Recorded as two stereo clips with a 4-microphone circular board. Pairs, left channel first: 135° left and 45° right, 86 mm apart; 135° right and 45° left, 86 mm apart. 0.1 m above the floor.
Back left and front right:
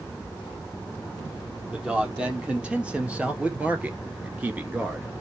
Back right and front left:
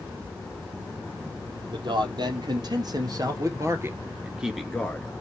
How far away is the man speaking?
About 3 m.